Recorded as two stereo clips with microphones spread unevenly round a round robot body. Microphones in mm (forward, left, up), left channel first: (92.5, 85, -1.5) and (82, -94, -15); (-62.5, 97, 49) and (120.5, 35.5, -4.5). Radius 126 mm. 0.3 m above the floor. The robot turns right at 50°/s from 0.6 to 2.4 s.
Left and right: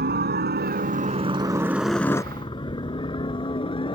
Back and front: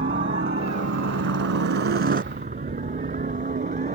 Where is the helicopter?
75° right; by 4.0 s 25° left.